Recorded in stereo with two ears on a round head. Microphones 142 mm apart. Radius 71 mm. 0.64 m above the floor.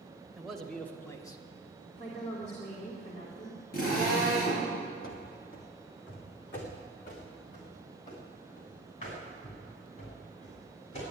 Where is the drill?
60° left (ahead or behind), 7 m.